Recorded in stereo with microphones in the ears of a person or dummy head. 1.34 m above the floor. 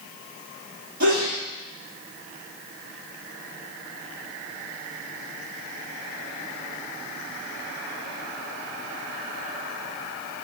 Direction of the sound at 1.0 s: 65° right (ahead or behind).